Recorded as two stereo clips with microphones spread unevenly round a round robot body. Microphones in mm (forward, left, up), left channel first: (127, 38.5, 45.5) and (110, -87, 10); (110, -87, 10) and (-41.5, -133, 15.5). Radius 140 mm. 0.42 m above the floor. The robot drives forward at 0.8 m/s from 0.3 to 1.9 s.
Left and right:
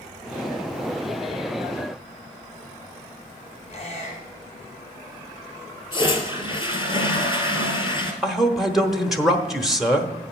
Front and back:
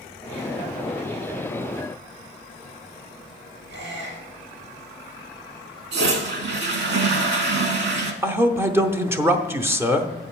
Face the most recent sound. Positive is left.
turn(degrees=-110)